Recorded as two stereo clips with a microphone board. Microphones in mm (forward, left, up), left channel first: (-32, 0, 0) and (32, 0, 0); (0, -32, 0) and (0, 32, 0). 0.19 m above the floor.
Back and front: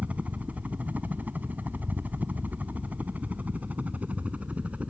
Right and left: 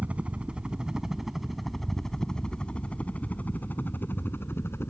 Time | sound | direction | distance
0.0 | a helicopter | 45° left | ?